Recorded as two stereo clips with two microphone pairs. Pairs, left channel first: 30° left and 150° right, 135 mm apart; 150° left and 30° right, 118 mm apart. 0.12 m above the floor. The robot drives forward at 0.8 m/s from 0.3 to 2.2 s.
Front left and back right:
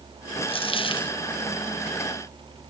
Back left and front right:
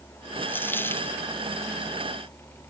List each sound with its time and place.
0.5 s a dropped coin: 75° left